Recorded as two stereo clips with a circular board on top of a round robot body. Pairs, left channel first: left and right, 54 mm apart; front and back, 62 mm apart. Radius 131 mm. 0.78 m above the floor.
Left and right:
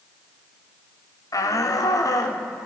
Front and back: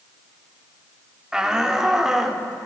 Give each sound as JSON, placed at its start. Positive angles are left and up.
{"t": 1.3, "sound": "a shout", "azimuth_deg": 100, "distance_m": 3.0}